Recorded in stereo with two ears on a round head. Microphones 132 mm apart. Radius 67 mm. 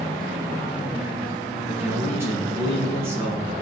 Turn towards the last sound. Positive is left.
turn(degrees=-15)  # may be behind; listen again after turning